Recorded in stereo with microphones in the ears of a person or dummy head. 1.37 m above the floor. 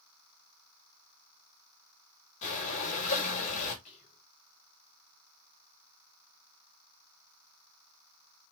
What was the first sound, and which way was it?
Breathing, 45° left (ahead or behind).